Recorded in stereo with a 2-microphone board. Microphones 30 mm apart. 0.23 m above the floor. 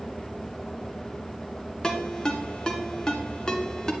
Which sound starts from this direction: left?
A ringtone, at 1.8 s.